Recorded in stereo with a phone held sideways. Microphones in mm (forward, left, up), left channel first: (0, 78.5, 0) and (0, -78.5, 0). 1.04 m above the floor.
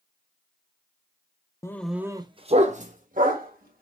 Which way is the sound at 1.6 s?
20° left (ahead or behind).